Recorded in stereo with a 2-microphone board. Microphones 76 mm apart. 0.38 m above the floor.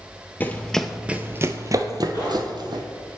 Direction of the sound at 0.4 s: 25° left (ahead or behind).